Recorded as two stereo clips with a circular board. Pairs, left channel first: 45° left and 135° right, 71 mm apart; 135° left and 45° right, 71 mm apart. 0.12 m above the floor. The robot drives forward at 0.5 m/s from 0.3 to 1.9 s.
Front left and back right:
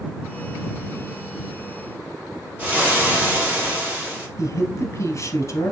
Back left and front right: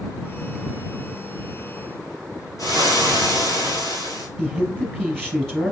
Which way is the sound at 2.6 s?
160° left.